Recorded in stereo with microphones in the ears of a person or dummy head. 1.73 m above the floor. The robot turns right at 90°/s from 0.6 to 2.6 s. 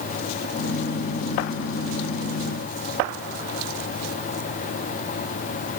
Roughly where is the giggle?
No giggle in this recording.